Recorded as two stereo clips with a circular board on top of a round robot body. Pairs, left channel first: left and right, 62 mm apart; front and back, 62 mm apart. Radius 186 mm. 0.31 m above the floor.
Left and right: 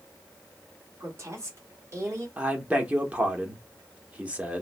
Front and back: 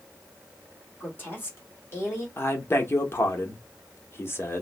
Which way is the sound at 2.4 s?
30° right.